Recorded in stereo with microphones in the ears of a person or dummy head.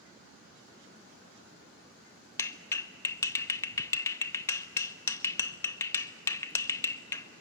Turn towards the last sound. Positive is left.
turn(degrees=15)  # may be behind; listen again after turning